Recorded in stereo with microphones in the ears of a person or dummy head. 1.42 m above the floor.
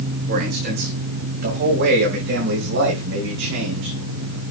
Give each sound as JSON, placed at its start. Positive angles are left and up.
{"t": 0.3, "sound": "a man speaking", "side_deg": -45, "distance_m": 5.0}